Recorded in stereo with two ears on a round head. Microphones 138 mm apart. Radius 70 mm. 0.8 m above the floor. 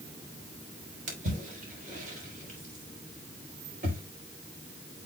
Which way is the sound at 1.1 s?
50° right (ahead or behind).